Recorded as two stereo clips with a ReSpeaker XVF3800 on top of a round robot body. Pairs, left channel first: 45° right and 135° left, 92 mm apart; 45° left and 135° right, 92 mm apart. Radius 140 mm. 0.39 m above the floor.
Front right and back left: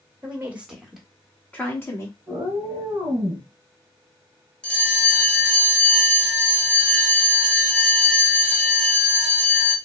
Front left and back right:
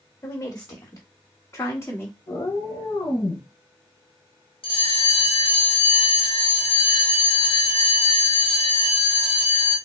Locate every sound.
0.2 s a woman speaking: 80° left, 1.4 m; by 2.2 s 5° right, 1.4 m
2.3 s a cat meowing: 80° left, 1.1 m
4.6 s a bell: 35° left, 1.0 m